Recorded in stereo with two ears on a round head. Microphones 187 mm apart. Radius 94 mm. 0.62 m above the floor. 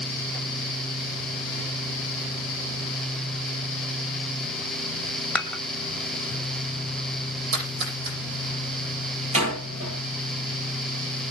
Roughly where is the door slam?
Right.